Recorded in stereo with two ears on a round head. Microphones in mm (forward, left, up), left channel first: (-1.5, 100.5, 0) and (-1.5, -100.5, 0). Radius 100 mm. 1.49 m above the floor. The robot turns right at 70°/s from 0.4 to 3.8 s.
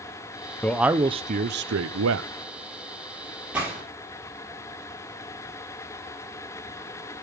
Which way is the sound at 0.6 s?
170° left.